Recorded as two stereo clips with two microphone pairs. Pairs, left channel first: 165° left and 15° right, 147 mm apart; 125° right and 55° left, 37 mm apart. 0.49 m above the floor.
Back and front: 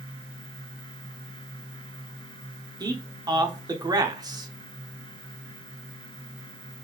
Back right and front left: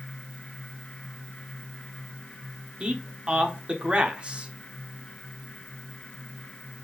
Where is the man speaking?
25° left, 0.8 m.